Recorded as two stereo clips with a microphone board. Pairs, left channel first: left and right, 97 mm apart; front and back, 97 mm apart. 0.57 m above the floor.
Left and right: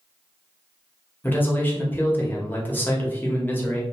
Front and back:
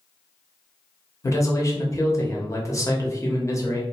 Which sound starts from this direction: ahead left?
A man speaking, at 1.2 s.